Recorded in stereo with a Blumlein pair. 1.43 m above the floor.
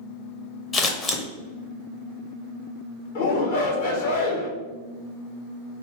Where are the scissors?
25° left, 0.7 m.